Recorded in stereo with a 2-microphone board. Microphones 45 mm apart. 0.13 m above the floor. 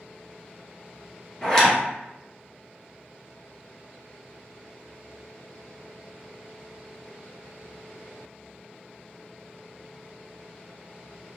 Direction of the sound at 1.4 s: 15° left (ahead or behind).